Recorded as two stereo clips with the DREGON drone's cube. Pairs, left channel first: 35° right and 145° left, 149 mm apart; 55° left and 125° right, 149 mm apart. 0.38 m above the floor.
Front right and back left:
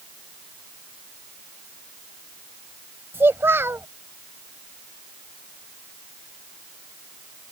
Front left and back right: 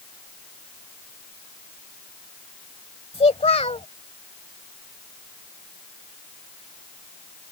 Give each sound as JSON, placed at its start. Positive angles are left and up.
{"t": 3.1, "sound": "a child speaking", "azimuth_deg": 75}